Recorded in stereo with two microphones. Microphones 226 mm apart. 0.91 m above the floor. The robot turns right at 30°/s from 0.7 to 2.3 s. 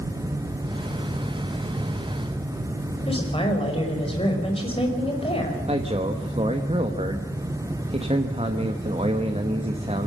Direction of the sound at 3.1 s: 25° left (ahead or behind).